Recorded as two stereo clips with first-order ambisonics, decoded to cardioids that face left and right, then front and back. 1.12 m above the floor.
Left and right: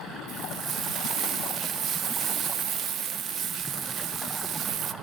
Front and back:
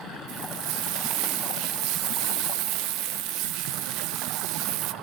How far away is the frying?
About 1.0 m.